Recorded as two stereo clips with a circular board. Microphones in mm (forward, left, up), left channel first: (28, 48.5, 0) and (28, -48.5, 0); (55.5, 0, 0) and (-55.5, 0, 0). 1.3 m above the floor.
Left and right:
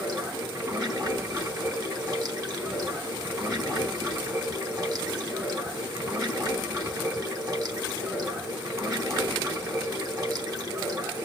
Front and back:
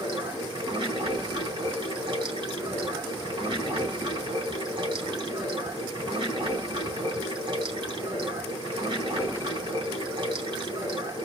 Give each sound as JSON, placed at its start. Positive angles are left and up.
{"t": 0.0, "sound": "running water", "azimuth_deg": -135, "distance_m": 3.5}